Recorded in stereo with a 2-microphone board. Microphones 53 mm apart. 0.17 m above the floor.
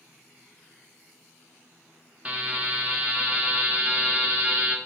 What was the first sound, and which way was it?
A buzzer, 25° right (ahead or behind).